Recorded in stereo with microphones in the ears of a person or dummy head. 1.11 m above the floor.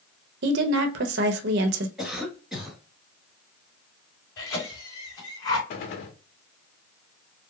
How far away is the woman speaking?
About 0.8 m.